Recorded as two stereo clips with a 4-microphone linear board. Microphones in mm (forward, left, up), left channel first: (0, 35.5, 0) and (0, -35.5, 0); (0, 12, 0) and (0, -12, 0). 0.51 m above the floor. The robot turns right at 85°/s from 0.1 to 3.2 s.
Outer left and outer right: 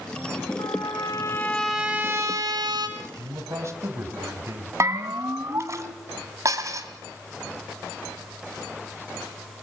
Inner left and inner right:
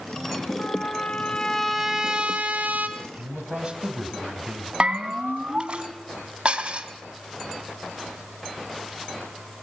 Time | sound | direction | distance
0.6 | a trumpet | 90° left | 3.5 m
3.0 | a man speaking | 55° right (ahead or behind) | 3 m
4.8 | a bell | 40° right (ahead or behind) | 1.8 m
6.5 | dishes clattering | 50° right (ahead or behind) | 2.5 m